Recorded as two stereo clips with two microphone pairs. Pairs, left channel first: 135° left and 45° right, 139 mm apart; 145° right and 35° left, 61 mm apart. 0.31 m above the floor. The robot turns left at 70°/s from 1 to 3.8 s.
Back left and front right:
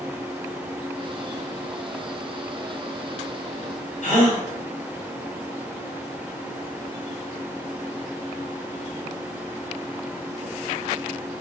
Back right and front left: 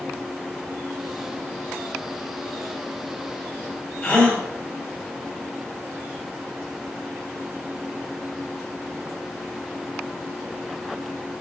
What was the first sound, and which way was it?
A gasp, 145° left.